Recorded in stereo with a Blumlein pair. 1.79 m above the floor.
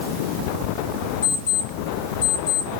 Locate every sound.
1.2 s an alarm clock: 55° left, 3 m